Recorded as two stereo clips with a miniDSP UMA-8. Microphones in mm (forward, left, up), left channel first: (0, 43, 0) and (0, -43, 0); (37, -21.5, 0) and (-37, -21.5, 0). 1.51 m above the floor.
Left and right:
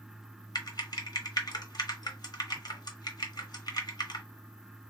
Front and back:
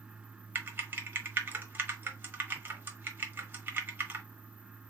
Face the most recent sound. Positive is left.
turn(degrees=120)